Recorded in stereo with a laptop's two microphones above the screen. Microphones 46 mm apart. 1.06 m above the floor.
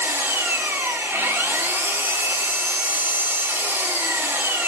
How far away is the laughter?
I don't hear laughter.